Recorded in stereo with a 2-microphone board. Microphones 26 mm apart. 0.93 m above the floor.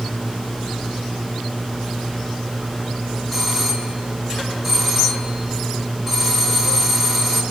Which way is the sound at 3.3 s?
5° left (ahead or behind).